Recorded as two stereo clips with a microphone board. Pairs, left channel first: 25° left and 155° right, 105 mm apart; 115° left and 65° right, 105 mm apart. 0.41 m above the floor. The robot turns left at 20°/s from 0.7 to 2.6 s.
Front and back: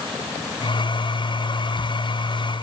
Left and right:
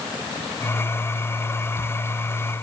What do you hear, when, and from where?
Only background noise.